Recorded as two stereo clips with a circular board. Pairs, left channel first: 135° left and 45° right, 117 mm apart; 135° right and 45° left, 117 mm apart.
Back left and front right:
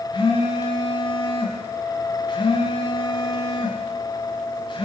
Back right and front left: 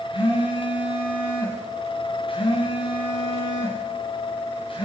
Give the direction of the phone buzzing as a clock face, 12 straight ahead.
6 o'clock.